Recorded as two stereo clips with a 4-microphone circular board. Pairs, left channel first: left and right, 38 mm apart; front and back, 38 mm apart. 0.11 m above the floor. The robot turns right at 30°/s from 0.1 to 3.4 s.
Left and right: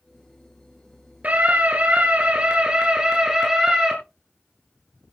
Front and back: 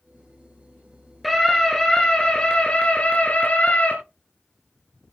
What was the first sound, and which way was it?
A scream, 85° right.